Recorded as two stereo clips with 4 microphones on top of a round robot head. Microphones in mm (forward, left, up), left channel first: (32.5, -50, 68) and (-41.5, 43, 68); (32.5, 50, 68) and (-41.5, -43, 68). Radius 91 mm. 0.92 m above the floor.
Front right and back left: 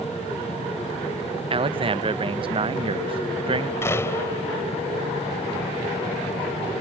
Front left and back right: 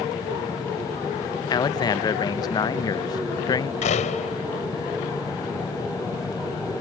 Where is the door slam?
20° left.